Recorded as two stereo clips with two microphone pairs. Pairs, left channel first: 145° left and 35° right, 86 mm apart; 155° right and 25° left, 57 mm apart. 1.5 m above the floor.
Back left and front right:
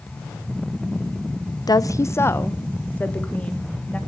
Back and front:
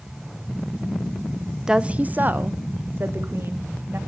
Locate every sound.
1.7 s a woman speaking: 105° left, 0.6 m; by 4.0 s 70° left, 2.5 m